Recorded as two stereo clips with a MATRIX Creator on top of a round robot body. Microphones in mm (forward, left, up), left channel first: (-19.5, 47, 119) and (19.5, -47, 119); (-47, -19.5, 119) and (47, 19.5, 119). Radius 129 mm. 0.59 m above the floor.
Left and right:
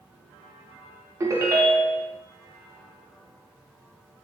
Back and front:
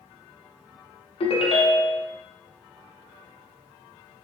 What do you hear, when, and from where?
1.2 s a ringtone: 130° right, 0.7 m